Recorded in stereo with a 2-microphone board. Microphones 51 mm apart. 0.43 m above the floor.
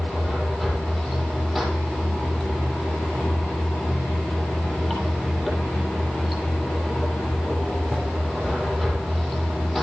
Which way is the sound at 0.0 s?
10° left (ahead or behind).